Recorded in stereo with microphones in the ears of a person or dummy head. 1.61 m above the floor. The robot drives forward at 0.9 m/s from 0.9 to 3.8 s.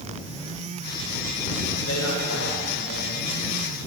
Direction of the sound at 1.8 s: 90° left.